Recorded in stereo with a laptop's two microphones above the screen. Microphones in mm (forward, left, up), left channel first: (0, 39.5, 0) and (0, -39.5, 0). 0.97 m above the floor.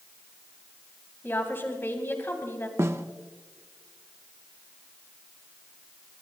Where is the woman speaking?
30° left (ahead or behind), 2.5 m.